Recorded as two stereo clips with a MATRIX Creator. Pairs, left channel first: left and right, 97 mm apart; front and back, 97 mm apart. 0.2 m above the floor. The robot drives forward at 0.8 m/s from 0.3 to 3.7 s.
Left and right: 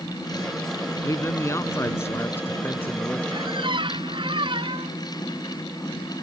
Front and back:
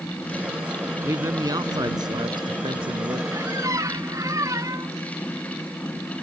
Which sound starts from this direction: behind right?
A squeak, at 3.3 s.